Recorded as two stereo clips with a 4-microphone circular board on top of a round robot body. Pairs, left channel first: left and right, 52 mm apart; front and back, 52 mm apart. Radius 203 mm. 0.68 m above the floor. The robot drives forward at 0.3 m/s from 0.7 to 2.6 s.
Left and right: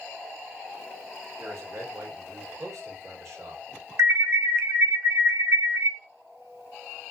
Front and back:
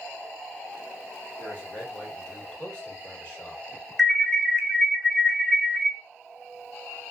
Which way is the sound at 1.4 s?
55° right.